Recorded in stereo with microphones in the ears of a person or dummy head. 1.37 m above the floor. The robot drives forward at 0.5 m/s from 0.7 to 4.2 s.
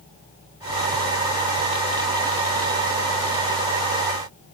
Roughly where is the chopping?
I don't hear chopping.